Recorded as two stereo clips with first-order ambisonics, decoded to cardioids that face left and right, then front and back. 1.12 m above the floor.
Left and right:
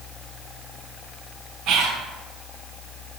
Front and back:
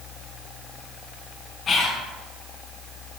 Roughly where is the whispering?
Ahead right.